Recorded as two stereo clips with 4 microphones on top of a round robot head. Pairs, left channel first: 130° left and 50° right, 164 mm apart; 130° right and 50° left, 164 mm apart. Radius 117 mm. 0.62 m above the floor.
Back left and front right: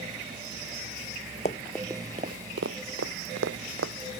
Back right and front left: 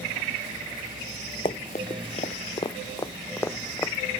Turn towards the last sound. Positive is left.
turn(degrees=-55)